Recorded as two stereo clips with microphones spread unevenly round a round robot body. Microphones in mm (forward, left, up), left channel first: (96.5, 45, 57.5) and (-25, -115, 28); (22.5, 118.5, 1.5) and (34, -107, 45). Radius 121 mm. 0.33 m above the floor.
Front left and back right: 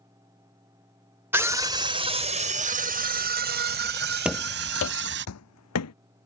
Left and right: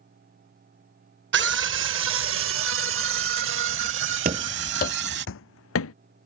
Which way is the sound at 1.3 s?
60° right.